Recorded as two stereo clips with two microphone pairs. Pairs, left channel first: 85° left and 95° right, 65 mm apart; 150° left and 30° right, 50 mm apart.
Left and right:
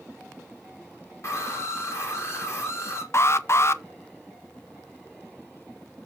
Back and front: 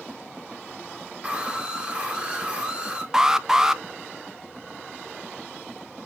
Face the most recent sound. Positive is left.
turn(degrees=45)